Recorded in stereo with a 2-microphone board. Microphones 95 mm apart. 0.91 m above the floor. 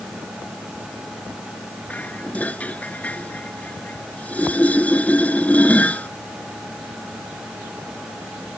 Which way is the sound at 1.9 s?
15° left (ahead or behind).